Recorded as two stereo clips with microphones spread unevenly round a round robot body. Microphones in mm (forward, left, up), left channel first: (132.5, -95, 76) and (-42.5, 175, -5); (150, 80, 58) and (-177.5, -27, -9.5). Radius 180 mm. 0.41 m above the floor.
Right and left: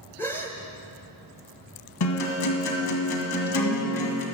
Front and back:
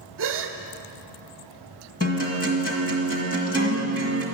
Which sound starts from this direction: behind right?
A gasp, at 0.2 s.